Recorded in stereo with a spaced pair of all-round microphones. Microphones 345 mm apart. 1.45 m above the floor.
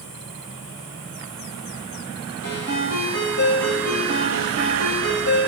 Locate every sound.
2.4 s a ringtone: 55° left (ahead or behind), 3.5 m